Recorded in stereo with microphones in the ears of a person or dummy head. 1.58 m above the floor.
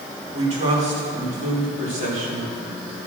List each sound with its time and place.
0.3 s a man speaking: 35° right (ahead or behind), 5.5 m; by 2.5 s 45° right (ahead or behind), 4 m